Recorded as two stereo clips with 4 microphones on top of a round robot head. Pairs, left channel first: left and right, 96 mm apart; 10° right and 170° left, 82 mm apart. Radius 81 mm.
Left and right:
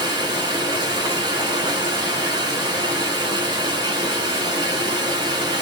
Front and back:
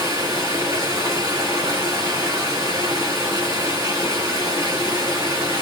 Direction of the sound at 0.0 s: 130° right.